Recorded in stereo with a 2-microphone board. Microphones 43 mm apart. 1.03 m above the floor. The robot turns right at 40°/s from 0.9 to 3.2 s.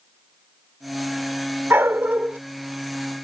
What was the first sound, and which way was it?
A dog barking, 65° right (ahead or behind).